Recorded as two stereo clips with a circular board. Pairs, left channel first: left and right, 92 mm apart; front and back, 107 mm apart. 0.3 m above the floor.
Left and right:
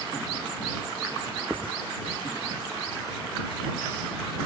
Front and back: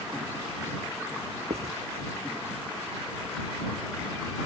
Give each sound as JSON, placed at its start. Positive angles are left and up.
{"t": 1.5, "sound": "writing", "azimuth_deg": -165}